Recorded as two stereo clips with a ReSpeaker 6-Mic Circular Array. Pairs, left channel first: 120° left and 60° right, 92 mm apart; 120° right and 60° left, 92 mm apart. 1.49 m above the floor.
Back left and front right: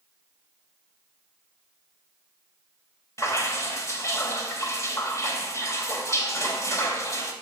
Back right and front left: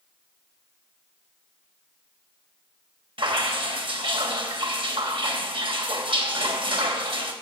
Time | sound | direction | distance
3.2 | dripping | 65° left | 3 m